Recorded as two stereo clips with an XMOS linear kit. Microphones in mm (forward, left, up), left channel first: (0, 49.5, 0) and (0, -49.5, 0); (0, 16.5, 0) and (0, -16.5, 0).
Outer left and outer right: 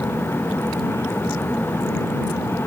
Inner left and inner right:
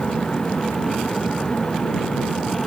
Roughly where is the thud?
No thud in this recording.